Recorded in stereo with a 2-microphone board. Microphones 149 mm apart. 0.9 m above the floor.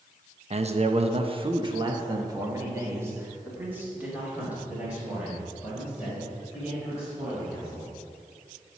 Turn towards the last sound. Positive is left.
turn(degrees=-5)  # may be behind; listen again after turning